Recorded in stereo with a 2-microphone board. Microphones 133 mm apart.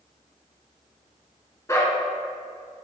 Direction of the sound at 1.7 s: 20° left (ahead or behind).